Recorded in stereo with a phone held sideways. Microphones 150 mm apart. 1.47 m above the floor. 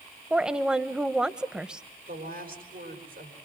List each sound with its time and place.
0.3 s a woman speaking: 5° right (ahead or behind), 1.0 m
2.1 s a woman speaking: 75° right (ahead or behind), 4 m